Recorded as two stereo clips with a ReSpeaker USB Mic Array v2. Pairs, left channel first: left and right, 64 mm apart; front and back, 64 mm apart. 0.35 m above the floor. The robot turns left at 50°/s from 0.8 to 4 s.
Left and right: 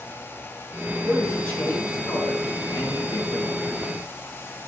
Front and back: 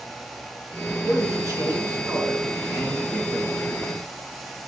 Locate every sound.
1.1 s a man speaking: 175° left, 3.5 m; by 3.6 s 45° left, 3.5 m